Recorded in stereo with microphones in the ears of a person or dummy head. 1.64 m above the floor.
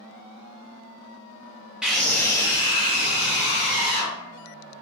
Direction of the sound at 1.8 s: 10° right (ahead or behind).